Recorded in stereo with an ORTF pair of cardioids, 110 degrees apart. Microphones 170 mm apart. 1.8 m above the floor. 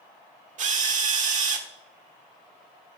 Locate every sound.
0.6 s a drill: 45° right, 1.5 m